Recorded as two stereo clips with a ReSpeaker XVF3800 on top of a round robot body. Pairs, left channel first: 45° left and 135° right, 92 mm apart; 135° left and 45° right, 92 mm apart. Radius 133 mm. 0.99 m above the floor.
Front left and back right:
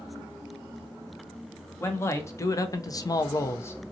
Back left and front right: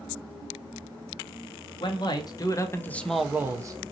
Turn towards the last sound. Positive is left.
turn(degrees=-20)